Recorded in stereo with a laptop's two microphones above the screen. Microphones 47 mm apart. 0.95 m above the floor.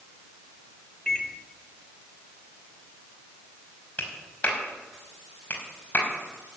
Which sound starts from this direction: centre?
A microwave, at 1.1 s.